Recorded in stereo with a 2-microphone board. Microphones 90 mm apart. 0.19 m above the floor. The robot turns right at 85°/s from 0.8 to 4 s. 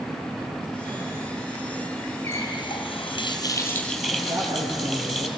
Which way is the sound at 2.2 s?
35° left.